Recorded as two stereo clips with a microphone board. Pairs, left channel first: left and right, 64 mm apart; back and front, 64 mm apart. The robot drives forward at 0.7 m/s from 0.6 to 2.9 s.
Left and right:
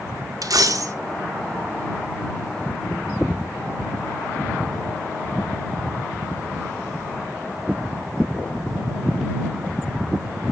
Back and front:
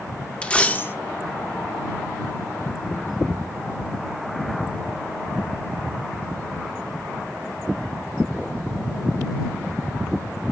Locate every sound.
0.4 s a dropped coin: 105° right, 0.6 m; by 0.9 s 125° right, 0.7 m